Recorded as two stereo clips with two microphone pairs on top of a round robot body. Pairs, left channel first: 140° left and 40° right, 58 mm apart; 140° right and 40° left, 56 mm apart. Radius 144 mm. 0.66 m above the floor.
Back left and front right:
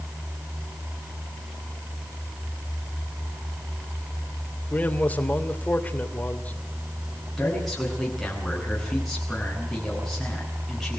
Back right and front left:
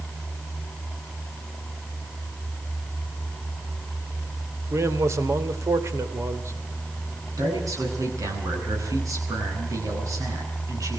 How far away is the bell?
I don't hear a bell.